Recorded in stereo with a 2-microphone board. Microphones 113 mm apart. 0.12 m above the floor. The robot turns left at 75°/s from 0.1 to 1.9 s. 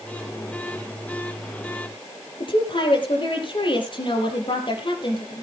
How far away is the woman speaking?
About 4 m.